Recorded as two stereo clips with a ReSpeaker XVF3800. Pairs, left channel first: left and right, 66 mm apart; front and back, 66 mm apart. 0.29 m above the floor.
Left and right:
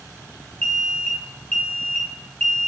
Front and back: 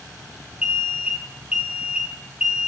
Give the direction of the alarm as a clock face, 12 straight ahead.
8 o'clock.